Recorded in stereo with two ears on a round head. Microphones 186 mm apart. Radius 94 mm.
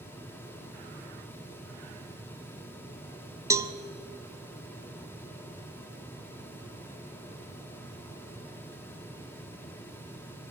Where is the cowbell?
15° right (ahead or behind), 0.8 m.